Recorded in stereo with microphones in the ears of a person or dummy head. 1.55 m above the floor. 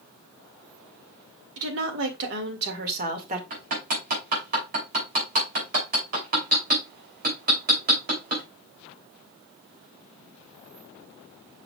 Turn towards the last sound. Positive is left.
turn(degrees=-50)  # may be behind; listen again after turning